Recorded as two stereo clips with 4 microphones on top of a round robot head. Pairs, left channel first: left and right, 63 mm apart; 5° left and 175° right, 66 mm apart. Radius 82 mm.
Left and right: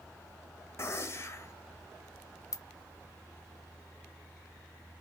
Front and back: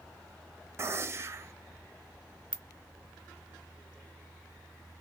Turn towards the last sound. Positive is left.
turn(degrees=75)